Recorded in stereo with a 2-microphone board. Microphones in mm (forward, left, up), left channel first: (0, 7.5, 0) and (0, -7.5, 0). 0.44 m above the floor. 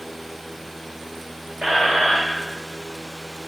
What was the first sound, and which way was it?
A squeak, 65° right (ahead or behind).